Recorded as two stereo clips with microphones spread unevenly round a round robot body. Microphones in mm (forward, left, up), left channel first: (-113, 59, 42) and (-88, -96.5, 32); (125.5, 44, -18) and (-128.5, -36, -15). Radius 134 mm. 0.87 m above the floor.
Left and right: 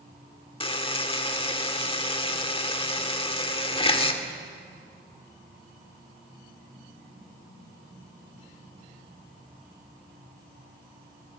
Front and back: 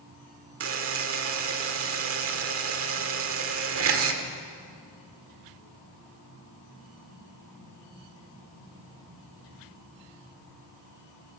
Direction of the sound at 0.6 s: 155° left.